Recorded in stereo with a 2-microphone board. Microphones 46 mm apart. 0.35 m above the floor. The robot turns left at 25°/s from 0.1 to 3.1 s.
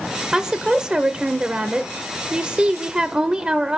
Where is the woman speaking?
15° right (ahead or behind), 0.8 m; by 3.8 s 20° right (ahead or behind), 0.8 m.